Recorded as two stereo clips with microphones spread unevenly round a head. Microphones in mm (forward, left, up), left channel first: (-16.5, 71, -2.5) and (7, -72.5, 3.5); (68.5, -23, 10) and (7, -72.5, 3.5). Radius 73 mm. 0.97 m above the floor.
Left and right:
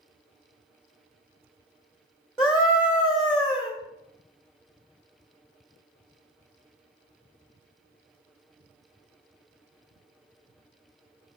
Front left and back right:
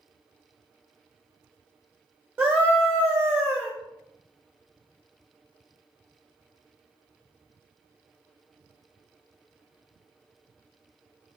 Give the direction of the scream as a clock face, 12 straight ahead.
6 o'clock.